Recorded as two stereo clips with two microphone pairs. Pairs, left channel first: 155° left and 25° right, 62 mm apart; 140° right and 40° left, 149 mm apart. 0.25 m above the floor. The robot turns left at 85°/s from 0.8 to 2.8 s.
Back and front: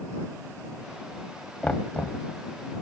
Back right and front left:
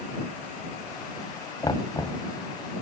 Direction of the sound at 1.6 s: 150° right.